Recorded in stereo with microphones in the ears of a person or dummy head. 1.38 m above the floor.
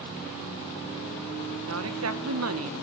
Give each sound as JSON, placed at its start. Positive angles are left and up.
{"t": 1.7, "sound": "a woman speaking", "side_deg": -75, "distance_m": 1.3}